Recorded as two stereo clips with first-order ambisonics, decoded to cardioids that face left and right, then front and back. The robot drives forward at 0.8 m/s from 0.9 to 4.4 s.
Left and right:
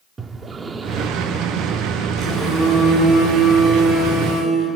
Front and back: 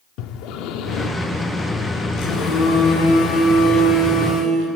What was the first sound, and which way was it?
Breathing, 15° right.